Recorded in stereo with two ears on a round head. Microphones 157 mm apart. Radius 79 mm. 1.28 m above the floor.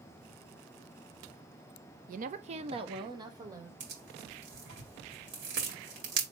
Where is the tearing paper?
65° right (ahead or behind), 2.0 m.